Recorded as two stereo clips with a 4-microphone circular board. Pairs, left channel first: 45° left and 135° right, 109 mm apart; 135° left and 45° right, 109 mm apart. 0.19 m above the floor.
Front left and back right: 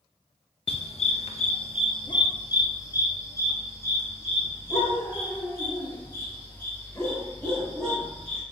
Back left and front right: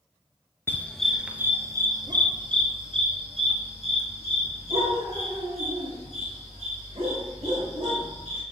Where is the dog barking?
65° left, 0.9 m; by 8.4 s 30° right, 6 m.